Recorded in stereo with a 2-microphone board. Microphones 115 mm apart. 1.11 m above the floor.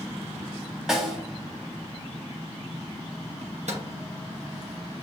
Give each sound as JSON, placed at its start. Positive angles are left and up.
{"t": 0.9, "sound": "a snare drum", "side_deg": -5, "distance_m": 1.1}
{"t": 3.4, "sound": "a microwave", "side_deg": -80, "distance_m": 1.0}